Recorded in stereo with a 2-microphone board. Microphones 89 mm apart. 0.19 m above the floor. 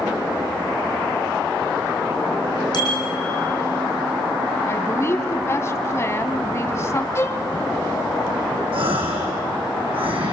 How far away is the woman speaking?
About 1.6 m.